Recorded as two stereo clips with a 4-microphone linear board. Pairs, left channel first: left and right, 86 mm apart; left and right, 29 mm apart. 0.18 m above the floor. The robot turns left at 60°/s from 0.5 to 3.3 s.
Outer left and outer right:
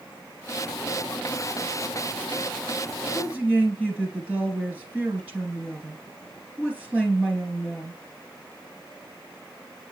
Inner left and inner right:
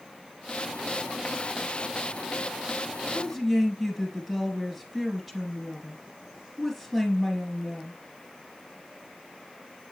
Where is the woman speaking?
10° right (ahead or behind), 2.5 m; by 8.0 s 15° right (ahead or behind), 2.5 m.